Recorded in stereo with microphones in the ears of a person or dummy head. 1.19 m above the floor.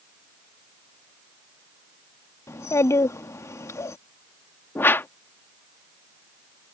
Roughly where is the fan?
No fan in this recording.